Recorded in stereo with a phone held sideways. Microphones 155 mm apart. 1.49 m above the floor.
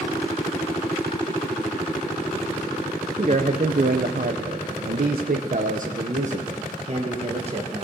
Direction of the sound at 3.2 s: 45° right (ahead or behind).